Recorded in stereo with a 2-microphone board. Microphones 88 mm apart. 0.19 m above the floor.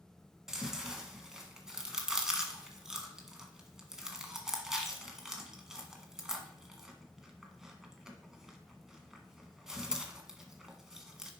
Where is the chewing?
5° right (ahead or behind), 1.3 m.